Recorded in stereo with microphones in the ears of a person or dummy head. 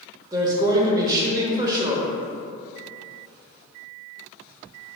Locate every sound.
0.3 s a woman speaking: 20° right (ahead or behind), 0.7 m